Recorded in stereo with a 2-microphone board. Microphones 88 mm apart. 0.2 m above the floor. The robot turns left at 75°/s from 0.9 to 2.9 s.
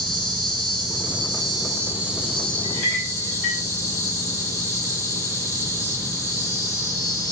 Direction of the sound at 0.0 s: 75° right.